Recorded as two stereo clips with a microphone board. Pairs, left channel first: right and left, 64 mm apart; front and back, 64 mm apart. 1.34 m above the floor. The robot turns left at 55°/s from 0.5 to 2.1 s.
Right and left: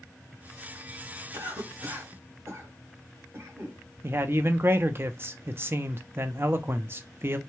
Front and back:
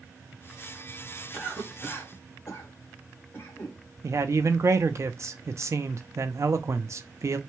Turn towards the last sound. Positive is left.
turn(degrees=140)